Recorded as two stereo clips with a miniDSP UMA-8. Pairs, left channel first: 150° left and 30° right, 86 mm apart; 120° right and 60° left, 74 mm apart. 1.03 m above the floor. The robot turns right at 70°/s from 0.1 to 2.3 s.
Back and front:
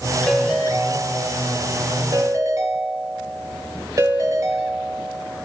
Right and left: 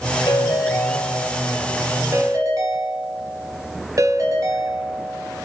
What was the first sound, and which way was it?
A ringtone, 125° right.